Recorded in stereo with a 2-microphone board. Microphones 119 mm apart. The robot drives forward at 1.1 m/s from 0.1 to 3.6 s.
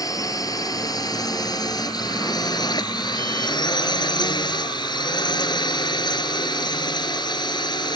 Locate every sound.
0.0 s a drone: 30° left (ahead or behind); by 8.0 s 40° left (ahead or behind)